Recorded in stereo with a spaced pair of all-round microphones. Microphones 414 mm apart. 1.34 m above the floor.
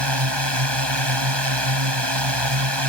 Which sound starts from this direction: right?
A drone, at 0.0 s.